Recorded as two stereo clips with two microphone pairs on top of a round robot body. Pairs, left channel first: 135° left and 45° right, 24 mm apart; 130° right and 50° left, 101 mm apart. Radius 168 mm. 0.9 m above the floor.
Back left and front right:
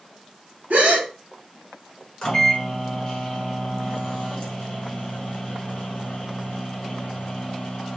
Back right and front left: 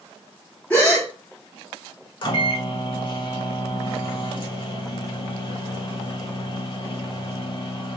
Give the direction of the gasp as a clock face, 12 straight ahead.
2 o'clock.